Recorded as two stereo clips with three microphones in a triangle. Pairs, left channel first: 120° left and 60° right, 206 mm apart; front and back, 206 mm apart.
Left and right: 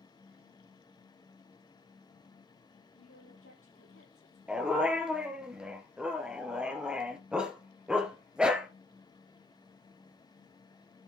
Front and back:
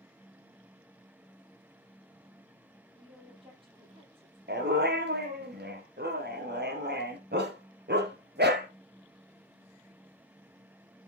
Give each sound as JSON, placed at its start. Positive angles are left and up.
{"t": 2.9, "sound": "a woman speaking", "azimuth_deg": 115, "distance_m": 7.5}
{"t": 4.5, "sound": "a dog barking", "azimuth_deg": -145, "distance_m": 2.0}